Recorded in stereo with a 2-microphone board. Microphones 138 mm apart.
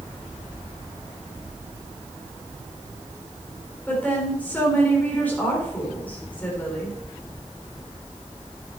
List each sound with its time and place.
3.9 s a woman speaking: 10° left (ahead or behind), 4.5 m